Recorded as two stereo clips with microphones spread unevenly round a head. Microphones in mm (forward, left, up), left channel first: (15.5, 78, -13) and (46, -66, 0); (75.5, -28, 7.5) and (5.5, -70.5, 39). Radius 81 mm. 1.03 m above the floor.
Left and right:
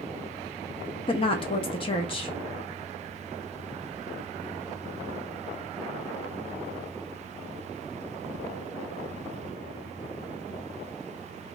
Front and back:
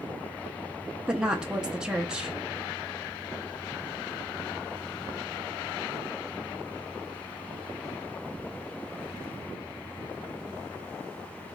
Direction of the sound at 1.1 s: 110° left.